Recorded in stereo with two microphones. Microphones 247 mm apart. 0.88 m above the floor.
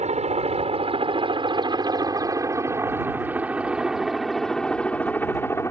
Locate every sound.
0.0 s a helicopter: 25° right (ahead or behind); by 5.7 s 10° left (ahead or behind)